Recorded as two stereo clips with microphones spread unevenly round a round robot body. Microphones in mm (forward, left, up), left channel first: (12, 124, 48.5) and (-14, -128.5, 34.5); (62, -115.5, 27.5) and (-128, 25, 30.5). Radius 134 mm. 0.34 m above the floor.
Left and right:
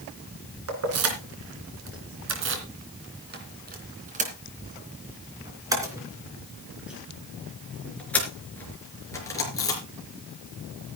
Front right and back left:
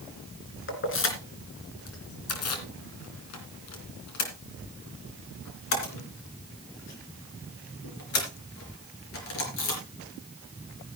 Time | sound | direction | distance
0.7 | keys jangling | 70° right | 3 m